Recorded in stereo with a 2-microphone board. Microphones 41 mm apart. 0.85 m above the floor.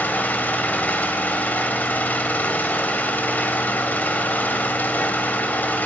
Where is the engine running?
45° left (ahead or behind), 1.2 m.